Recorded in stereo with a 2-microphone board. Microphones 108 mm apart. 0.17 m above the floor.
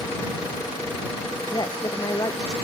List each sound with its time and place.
1.5 s a woman speaking: 35° left (ahead or behind)